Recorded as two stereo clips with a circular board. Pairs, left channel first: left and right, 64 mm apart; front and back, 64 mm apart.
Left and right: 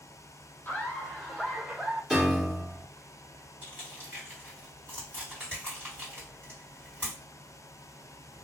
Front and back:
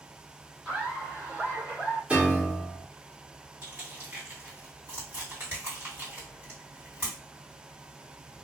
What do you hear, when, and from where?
0.7 s laughter: 120° left, 1.2 m; by 2.0 s 155° right, 1.6 m
2.1 s a piano: 170° right, 1.1 m
3.6 s crushing: 135° right, 2.0 m